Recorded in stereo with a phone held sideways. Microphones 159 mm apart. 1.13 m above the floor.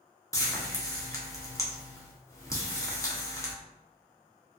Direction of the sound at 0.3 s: 20° left (ahead or behind).